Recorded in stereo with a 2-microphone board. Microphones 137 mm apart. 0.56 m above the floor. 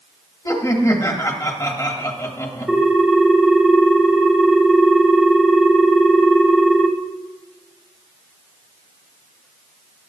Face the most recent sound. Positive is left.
turn(degrees=-5)  # may be behind; listen again after turning